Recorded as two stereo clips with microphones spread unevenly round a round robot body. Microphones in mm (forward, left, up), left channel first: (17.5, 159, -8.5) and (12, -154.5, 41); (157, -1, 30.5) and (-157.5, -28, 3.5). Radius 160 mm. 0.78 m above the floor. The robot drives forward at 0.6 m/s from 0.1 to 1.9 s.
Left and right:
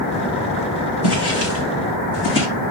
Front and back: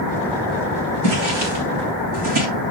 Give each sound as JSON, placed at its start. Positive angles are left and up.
{"t": 1.0, "sound": "footsteps", "azimuth_deg": 140, "distance_m": 3.5}